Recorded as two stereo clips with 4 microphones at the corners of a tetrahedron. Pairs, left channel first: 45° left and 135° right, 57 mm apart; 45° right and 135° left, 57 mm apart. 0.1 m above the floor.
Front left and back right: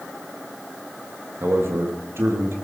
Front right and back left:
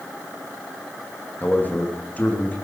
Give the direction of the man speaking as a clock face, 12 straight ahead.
3 o'clock.